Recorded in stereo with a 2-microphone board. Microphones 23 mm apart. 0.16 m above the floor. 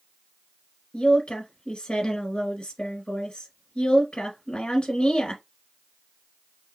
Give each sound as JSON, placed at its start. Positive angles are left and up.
{"t": 0.9, "sound": "a woman speaking", "side_deg": 45, "distance_m": 1.7}